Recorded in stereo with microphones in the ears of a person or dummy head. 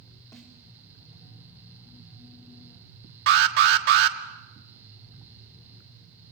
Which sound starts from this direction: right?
An alarm, at 3.3 s.